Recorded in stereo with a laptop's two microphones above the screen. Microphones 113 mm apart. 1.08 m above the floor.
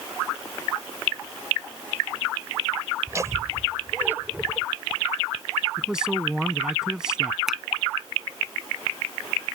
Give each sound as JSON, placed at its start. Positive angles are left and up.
{"t": 3.1, "sound": "laughter", "side_deg": -30}
{"t": 5.8, "sound": "a man speaking", "side_deg": -5}
{"t": 7.5, "sound": "a finger snap", "side_deg": -5}